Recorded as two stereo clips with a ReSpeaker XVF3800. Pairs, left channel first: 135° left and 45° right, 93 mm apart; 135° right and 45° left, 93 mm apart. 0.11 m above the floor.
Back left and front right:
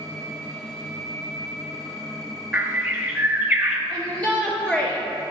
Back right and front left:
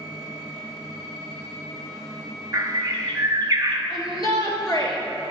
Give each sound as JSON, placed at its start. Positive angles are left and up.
{"t": 2.5, "sound": "a bird", "azimuth_deg": 10, "distance_m": 0.8}
{"t": 3.9, "sound": "a shout", "azimuth_deg": -155, "distance_m": 1.8}